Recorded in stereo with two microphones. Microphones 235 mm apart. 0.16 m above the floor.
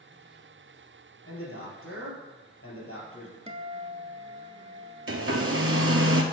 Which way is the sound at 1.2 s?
65° left (ahead or behind).